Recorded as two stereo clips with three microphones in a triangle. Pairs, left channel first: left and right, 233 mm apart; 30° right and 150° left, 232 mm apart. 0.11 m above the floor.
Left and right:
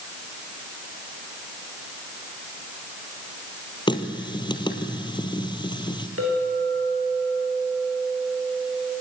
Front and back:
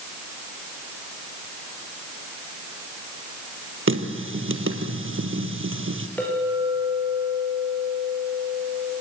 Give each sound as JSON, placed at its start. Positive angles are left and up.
{"t": 3.9, "sound": "a running tap", "azimuth_deg": 155, "distance_m": 1.9}
{"t": 6.2, "sound": "a clink", "azimuth_deg": -115, "distance_m": 8.0}